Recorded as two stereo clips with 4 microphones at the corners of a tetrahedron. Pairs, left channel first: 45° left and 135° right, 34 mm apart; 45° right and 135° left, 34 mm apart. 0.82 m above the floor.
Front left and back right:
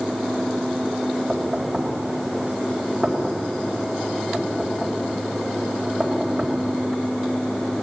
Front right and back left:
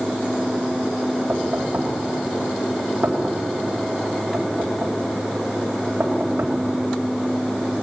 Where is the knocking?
150° left, 4 m.